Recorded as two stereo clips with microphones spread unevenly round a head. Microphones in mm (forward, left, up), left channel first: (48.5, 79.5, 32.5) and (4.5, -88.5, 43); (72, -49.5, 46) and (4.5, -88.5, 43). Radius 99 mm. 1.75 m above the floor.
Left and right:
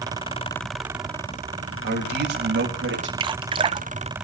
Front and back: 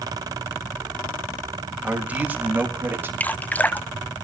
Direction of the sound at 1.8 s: 75° right.